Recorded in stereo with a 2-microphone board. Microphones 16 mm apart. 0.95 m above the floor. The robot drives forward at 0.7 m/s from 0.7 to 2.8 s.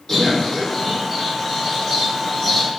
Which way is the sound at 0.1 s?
30° left (ahead or behind).